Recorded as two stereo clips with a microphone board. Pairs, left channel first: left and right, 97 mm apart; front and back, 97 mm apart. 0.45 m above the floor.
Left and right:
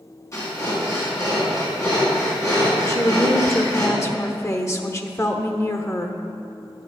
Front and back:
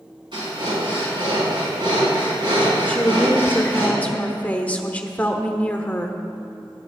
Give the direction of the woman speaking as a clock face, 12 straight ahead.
10 o'clock.